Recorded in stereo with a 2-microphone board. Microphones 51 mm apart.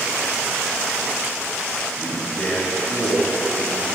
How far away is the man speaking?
About 2.0 m.